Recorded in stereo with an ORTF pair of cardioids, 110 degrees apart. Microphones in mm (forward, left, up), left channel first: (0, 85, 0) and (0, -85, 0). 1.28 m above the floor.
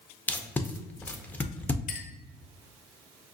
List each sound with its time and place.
0.3 s tape being pulled: 10° left, 0.5 m
1.9 s a clink: 55° left, 0.6 m